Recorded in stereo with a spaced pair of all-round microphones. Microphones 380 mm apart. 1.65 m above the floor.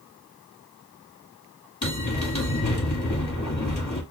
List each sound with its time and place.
1.8 s a bell: 50° left (ahead or behind), 1.6 m